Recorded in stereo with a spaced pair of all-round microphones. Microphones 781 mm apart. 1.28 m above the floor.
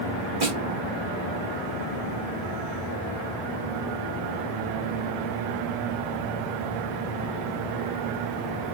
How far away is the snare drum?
About 2.5 m.